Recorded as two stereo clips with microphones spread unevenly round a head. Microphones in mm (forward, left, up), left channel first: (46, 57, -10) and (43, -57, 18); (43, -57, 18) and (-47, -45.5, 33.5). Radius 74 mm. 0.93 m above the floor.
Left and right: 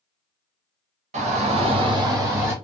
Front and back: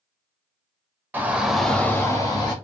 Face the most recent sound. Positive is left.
turn(degrees=-15)